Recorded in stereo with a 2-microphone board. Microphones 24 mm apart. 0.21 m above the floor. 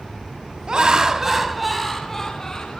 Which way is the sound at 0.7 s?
35° right (ahead or behind).